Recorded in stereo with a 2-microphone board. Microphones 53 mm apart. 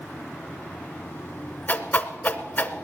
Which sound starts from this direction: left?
A whoosh, at 1.7 s.